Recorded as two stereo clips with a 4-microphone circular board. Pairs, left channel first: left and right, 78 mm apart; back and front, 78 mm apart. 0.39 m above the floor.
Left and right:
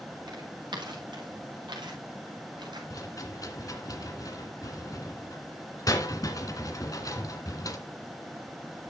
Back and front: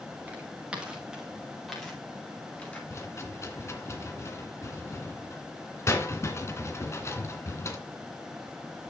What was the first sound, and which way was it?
Footsteps, 70° right.